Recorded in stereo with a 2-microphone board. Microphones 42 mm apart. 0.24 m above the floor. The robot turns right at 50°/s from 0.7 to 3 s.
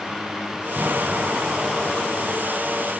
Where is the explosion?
70° right, 1.7 m; by 2.9 s 35° left, 1.7 m.